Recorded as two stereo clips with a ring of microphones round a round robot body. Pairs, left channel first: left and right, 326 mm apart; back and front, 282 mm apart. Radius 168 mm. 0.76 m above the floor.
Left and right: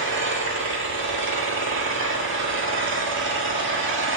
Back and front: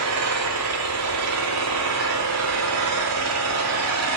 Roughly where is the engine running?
Ahead right.